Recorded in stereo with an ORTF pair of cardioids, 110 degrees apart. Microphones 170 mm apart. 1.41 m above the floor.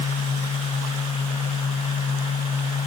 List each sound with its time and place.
0.0 s a fan: 45° left, 0.8 m